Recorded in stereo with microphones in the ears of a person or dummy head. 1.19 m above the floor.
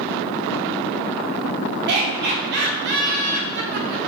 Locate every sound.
1.9 s laughter: 55° right (ahead or behind), 0.8 m